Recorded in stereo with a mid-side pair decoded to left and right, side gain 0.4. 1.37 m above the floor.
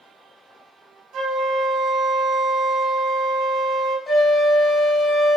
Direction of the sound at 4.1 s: 35° left.